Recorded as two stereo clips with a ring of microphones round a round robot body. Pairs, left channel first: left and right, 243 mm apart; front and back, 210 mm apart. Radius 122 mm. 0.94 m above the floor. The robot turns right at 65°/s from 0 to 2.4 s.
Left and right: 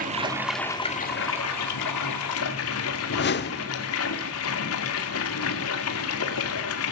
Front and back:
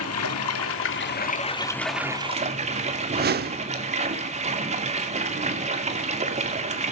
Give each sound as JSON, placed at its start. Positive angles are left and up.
{"t": 0.0, "sound": "running water", "azimuth_deg": -35, "distance_m": 2.5}
{"t": 3.1, "sound": "a whoosh", "azimuth_deg": 140, "distance_m": 1.0}